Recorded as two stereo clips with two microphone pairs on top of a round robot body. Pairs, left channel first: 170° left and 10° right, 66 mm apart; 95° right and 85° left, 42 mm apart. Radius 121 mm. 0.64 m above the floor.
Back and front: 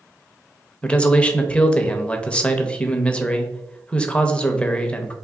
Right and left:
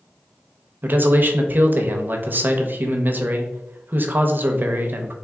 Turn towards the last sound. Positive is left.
turn(degrees=125)